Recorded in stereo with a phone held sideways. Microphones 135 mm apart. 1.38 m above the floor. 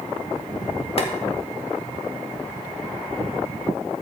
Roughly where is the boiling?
Left.